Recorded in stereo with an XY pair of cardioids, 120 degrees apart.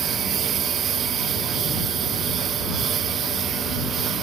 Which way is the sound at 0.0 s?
50° right.